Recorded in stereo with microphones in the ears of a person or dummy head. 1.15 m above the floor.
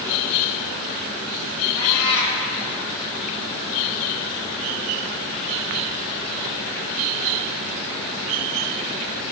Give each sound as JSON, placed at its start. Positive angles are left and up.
{"t": 1.8, "sound": "a cat meowing", "side_deg": 60, "distance_m": 3.0}